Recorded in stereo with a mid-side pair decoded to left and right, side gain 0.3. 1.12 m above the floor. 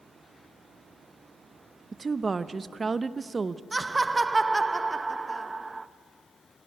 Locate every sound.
1.9 s a woman speaking: 40° right, 0.7 m
3.7 s laughter: 25° right, 1.0 m